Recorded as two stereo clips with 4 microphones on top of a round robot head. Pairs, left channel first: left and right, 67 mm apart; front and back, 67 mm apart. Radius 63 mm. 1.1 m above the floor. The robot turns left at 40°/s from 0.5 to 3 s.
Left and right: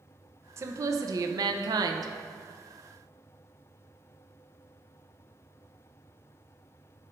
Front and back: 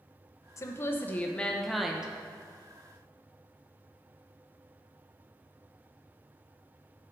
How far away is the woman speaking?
About 0.6 m.